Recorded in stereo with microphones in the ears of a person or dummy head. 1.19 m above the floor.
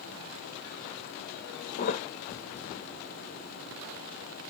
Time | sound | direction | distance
1.8 | a thud | 45° left (ahead or behind) | 0.6 m